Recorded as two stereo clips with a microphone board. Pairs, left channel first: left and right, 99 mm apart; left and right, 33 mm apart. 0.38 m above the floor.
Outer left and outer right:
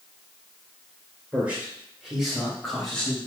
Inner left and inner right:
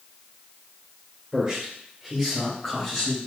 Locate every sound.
1.3 s a man speaking: 20° right (ahead or behind), 1.5 m; by 3.2 s 5° left (ahead or behind), 2 m